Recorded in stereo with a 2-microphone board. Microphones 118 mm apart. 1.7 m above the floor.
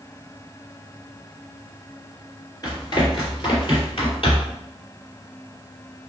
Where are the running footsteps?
35° left (ahead or behind), 2.0 m; by 4.6 s 55° left (ahead or behind), 3 m.